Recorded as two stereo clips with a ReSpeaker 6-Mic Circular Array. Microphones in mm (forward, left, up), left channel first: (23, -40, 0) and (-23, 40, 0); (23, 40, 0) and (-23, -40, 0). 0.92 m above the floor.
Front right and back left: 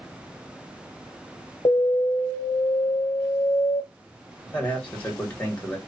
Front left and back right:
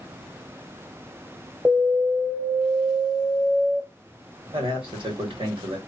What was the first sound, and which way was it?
An alarm, 35° right.